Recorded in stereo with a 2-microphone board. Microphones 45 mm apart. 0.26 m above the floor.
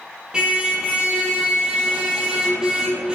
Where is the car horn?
15° right (ahead or behind), 5 m.